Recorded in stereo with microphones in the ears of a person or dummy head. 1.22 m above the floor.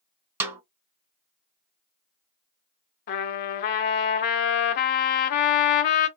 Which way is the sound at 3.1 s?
40° left (ahead or behind).